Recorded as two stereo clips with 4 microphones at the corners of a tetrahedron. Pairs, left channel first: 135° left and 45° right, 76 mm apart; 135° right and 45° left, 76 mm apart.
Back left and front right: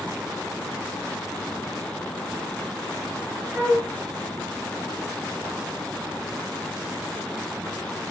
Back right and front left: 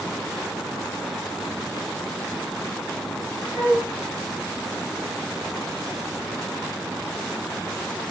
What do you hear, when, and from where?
3.5 s a flute: 105° right, 1.1 m